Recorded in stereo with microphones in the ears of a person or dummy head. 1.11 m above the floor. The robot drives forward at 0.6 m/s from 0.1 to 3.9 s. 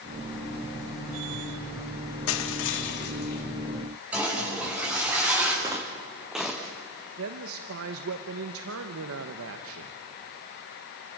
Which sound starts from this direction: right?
A woman speaking, at 7.2 s.